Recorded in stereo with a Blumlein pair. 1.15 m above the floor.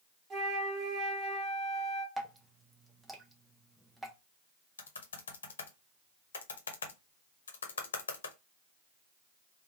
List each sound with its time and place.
0.3 s a flute: 20° right, 1.5 m
2.2 s dripping: 5° right, 0.9 m
4.8 s typing on a keyboard: 65° left, 0.9 m